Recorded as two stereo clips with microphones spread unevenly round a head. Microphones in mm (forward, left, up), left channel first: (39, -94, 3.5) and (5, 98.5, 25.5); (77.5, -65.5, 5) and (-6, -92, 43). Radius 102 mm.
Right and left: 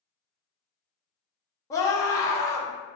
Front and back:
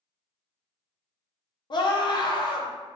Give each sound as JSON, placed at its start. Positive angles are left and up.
{"t": 1.7, "sound": "a scream", "azimuth_deg": -5, "distance_m": 1.2}